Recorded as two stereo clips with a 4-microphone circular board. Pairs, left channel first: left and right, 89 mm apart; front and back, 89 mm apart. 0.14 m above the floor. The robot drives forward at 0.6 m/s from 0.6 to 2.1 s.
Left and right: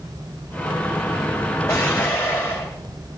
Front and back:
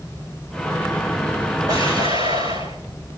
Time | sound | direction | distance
1.7 | an explosion | 150° left | 5 m